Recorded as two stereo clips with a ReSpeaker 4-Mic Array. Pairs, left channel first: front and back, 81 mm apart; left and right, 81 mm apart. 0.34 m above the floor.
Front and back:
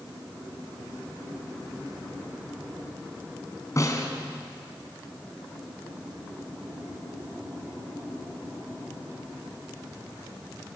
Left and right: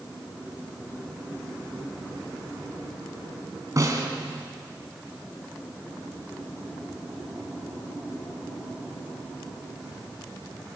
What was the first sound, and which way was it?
A snare drum, 45° right.